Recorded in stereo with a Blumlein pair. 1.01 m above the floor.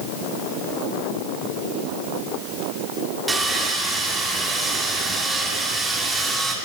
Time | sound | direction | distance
3.3 | sawing | 10° right | 1.8 m